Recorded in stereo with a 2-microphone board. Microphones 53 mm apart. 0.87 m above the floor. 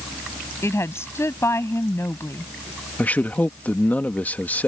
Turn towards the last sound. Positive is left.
turn(degrees=30)  # may be behind; listen again after turning